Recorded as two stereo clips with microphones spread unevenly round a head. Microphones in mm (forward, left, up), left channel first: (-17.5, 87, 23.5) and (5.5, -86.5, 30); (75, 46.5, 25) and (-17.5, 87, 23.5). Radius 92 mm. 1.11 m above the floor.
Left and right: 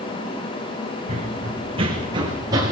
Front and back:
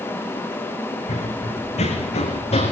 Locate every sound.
1.1 s running footsteps: 30° right, 4.5 m; by 2.7 s 10° right, 5 m